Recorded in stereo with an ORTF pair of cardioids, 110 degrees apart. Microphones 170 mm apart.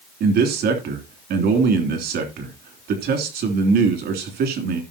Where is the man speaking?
70° right, 3 m.